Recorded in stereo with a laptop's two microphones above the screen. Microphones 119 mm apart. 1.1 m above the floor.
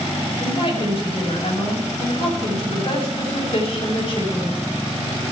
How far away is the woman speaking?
About 6.5 m.